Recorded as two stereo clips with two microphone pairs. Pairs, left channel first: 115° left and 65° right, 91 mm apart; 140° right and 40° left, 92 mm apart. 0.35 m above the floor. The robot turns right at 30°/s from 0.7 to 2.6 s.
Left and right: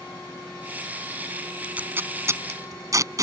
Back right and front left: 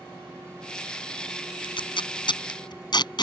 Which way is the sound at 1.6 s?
140° right.